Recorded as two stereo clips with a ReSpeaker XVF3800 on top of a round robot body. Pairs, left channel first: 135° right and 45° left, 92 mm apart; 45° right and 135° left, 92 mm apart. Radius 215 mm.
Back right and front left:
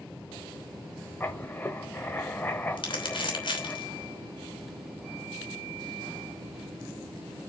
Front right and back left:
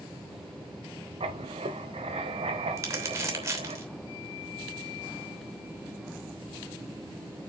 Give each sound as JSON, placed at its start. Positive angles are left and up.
{"t": 1.2, "sound": "writing", "azimuth_deg": 155, "distance_m": 0.9}
{"t": 2.8, "sound": "crumpling", "azimuth_deg": -170, "distance_m": 3.0}